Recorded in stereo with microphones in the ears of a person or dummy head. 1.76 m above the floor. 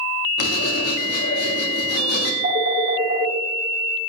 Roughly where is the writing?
Left.